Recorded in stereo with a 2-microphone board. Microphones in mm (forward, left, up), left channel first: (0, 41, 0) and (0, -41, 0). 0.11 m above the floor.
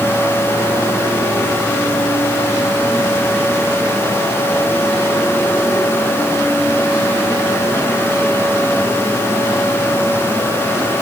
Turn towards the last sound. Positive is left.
No sound to turn to.